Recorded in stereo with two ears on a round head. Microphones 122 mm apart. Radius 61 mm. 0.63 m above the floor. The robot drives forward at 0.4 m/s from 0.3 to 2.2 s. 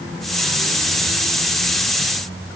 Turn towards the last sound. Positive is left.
No sound to turn to.